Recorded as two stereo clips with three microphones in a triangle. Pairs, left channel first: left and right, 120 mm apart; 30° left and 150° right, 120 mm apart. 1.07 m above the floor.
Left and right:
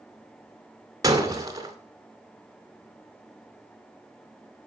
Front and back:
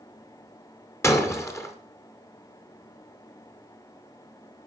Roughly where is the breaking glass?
Ahead right.